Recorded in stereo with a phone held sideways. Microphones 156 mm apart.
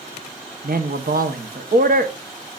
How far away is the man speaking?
About 1.2 m.